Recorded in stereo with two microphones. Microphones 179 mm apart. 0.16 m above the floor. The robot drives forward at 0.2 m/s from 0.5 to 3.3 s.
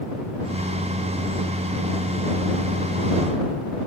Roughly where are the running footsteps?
No running footsteps in this recording.